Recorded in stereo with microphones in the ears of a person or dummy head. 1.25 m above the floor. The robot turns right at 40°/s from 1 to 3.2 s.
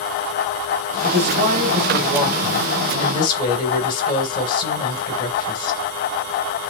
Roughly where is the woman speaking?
Ahead right.